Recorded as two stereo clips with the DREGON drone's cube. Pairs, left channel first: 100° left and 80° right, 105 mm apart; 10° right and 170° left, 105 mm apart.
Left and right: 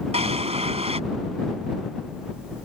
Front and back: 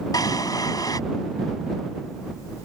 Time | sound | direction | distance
0.1 | a drawer | 65° right | ?